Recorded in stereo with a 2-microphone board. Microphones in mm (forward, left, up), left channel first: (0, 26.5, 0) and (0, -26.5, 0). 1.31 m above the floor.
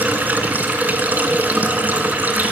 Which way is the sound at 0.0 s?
35° right (ahead or behind).